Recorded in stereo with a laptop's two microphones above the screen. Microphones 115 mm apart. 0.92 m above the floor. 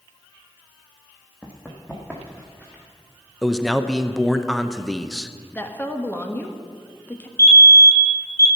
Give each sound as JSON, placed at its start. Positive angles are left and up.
{"t": 1.4, "sound": "running footsteps", "side_deg": 10, "distance_m": 1.9}
{"t": 3.4, "sound": "a man speaking", "side_deg": 0, "distance_m": 0.7}
{"t": 5.5, "sound": "a woman speaking", "side_deg": 15, "distance_m": 1.4}
{"t": 7.4, "sound": "a fire alarm", "side_deg": 25, "distance_m": 1.8}